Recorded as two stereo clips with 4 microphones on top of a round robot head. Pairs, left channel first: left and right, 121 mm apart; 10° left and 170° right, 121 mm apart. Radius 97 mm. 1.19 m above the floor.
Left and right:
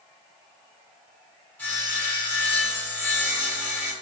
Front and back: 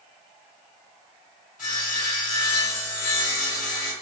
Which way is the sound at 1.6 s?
15° left.